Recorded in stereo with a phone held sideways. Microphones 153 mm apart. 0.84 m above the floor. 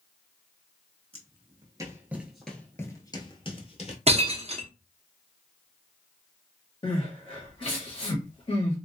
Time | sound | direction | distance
1.1 | footsteps | 40° right (ahead or behind) | 1.0 m
4.1 | breaking glass | 40° right (ahead or behind) | 0.6 m
6.8 | crying | 35° left (ahead or behind) | 1.3 m